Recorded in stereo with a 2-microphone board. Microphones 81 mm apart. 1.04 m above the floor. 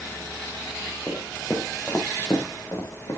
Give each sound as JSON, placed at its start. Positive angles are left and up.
{"t": 1.1, "sound": "footsteps", "side_deg": 10, "distance_m": 3.5}